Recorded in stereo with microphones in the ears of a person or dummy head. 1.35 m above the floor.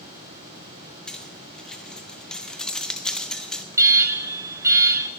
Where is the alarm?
15° right (ahead or behind), 0.8 m.